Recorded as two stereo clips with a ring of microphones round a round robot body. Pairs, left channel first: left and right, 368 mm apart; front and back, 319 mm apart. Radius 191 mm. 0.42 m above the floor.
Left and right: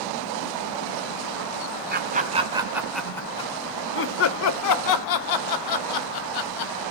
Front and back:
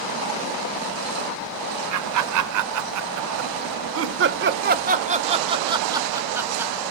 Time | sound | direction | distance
1.9 | laughter | 150° right | 1.8 m